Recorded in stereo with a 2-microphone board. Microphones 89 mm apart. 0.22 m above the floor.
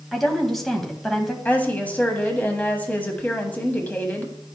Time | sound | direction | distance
0.1 | a woman speaking | 5° left (ahead or behind) | 1.1 m
1.4 | a woman speaking | 20° left (ahead or behind) | 1.2 m